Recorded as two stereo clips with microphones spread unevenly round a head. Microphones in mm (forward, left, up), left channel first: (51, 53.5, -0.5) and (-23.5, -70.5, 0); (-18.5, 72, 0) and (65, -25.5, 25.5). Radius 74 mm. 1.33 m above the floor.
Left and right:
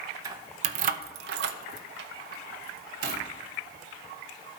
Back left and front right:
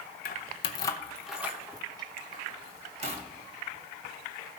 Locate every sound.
0.2 s keys jangling: 170° left, 0.8 m; by 3.2 s 95° right, 1.8 m